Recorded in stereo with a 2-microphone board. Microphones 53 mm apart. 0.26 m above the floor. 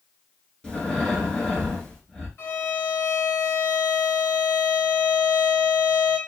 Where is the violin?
50° left (ahead or behind), 2 m.